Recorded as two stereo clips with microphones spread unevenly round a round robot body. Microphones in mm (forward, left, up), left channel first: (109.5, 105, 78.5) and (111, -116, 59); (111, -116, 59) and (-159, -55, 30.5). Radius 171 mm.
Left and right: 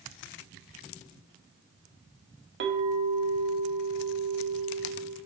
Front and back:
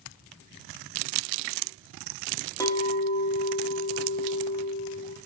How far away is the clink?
About 0.7 m.